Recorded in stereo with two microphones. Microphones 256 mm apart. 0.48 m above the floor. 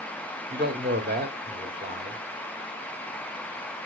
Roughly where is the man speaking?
Right.